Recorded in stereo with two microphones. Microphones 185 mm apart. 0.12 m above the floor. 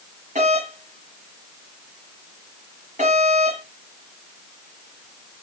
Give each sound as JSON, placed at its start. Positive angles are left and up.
{"t": 0.3, "sound": "a doorbell", "side_deg": -40, "distance_m": 4.0}